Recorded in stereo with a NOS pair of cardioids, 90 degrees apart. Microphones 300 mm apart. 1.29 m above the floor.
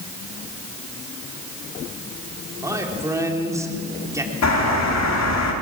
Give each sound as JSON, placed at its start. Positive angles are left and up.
{"t": 2.6, "sound": "a man speaking", "azimuth_deg": -10, "distance_m": 3.5}
{"t": 4.4, "sound": "a bird", "azimuth_deg": 60, "distance_m": 3.5}